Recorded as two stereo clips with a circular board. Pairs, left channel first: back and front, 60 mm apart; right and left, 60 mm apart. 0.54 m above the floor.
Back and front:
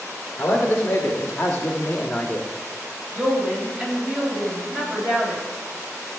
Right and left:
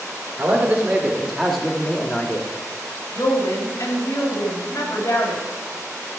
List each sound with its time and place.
0.4 s a man speaking: 115° left, 2 m; by 2.5 s 100° right, 1.6 m
3.1 s a woman speaking: 70° right, 3 m